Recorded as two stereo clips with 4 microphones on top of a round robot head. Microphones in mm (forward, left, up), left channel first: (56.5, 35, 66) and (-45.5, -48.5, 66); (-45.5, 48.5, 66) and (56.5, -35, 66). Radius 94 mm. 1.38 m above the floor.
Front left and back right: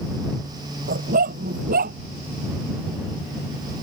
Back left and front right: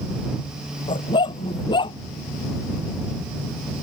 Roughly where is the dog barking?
Behind.